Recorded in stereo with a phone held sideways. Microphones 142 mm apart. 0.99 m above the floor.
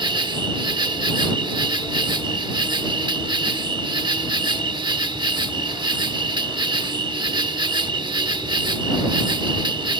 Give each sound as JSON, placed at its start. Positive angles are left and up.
{"t": 0.0, "sound": "an insect", "side_deg": -35}